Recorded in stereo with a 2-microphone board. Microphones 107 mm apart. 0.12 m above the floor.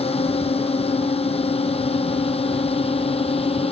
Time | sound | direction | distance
0.0 | a drone | 70° left (ahead or behind) | ?